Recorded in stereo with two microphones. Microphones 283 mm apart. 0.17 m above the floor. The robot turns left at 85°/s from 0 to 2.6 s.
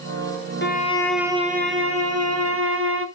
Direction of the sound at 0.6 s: 45° left.